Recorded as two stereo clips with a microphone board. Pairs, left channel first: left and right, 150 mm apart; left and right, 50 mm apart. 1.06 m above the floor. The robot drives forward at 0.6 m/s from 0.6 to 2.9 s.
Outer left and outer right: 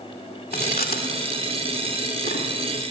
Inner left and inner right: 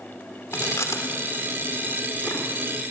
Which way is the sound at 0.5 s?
75° left (ahead or behind).